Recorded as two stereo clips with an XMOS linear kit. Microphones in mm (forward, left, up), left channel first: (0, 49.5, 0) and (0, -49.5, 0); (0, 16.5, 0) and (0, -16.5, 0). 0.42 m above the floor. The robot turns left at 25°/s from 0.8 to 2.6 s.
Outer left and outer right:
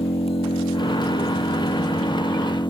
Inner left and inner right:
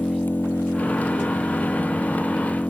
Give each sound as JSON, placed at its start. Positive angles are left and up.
{"t": 0.0, "sound": "an engine running", "azimuth_deg": 100}